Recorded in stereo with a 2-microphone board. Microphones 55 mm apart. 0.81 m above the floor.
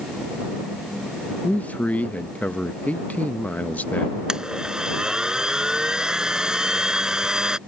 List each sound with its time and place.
1.4 s a man speaking: 30° left (ahead or behind)
4.3 s a blender: 10° right (ahead or behind)